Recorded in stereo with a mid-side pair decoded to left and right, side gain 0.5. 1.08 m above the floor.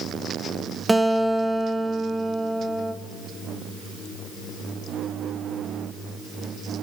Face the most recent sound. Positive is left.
turn(degrees=-10)